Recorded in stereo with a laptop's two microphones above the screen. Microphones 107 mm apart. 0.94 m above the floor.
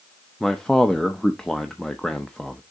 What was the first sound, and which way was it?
A man speaking, 5° left (ahead or behind).